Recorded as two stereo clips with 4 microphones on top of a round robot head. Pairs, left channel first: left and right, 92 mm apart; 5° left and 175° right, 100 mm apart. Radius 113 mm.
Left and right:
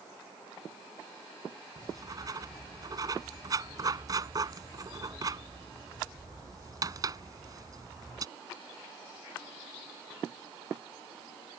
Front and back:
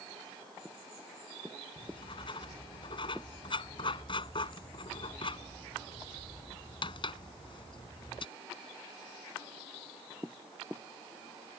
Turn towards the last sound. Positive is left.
turn(degrees=-40)